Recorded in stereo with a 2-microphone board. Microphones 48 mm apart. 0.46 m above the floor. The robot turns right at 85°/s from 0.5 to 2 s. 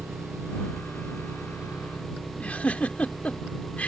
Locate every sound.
0.0 s an engine running: 125° right; by 3.9 s straight ahead
2.4 s a giggle: 30° left (ahead or behind)